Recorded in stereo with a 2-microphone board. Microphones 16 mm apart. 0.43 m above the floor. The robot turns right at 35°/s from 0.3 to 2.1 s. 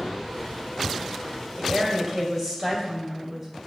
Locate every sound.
1.6 s a woman speaking: 35° right (ahead or behind), 2.0 m; by 3.6 s 20° right (ahead or behind), 2.0 m